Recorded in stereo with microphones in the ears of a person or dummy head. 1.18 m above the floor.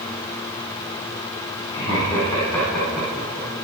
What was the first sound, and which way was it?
Laughter, 30° left (ahead or behind).